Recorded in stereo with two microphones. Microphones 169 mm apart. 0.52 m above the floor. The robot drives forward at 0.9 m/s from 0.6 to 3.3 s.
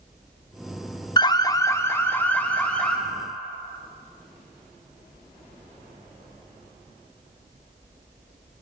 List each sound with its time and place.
1.2 s an alarm: 25° left (ahead or behind), 0.5 m; by 3.0 s 5° left (ahead or behind), 1.7 m